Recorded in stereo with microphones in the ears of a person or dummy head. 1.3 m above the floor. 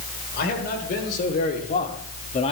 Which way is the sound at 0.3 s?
50° left (ahead or behind).